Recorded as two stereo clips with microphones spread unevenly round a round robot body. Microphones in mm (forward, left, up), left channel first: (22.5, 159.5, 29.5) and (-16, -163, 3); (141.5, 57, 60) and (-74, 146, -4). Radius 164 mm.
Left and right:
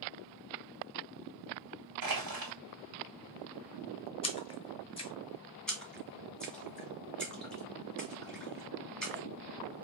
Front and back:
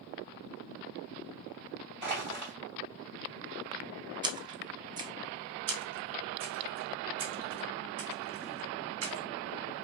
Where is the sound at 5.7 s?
175° left, 1.4 m.